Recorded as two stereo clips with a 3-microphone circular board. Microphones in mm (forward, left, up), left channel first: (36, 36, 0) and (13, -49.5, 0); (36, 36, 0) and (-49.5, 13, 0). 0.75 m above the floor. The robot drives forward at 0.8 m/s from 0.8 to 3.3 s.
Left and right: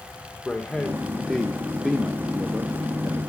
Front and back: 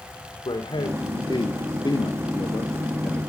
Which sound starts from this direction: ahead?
A man speaking, at 0.5 s.